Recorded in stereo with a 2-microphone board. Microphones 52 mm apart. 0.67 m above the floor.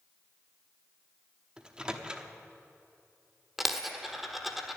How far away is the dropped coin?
About 1.2 m.